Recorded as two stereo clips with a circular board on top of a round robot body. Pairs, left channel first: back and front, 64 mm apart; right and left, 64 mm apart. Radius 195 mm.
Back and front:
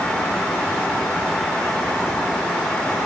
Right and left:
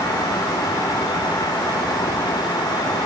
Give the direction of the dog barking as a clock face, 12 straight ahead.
I don't hear a dog barking.